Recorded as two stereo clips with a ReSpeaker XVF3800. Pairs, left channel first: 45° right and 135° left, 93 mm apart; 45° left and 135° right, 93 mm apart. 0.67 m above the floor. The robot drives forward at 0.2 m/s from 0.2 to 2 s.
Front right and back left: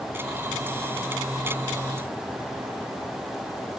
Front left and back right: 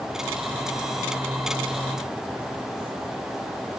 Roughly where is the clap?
I don't hear a clap.